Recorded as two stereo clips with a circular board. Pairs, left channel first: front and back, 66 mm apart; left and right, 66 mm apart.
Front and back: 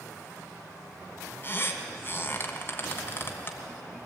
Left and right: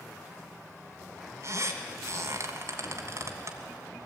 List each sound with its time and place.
1.4 s a squeak: 55° right, 1.9 m